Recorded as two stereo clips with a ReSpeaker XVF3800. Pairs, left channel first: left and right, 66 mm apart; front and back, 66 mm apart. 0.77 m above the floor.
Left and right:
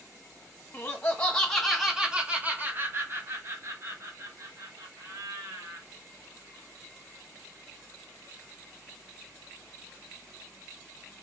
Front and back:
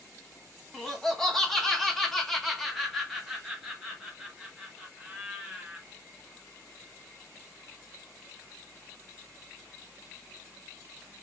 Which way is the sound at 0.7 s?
75° left.